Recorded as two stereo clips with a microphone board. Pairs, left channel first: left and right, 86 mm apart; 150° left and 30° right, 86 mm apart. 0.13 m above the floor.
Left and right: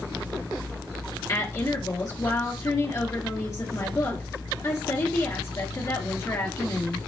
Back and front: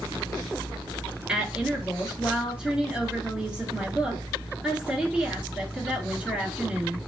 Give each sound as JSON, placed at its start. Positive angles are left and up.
{"t": 1.3, "sound": "a woman speaking", "azimuth_deg": 50, "distance_m": 2.0}